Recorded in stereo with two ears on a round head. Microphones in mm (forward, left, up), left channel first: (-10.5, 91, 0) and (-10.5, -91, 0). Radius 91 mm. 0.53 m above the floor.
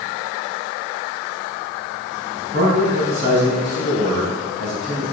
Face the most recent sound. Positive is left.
turn(degrees=-50)  # may be behind; listen again after turning